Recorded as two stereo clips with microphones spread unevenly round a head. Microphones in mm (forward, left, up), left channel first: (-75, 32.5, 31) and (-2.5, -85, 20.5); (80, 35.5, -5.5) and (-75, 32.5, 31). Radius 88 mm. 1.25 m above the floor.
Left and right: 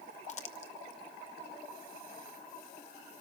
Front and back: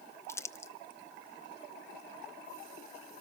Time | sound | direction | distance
0.3 | crumpling | 70° left | 0.8 m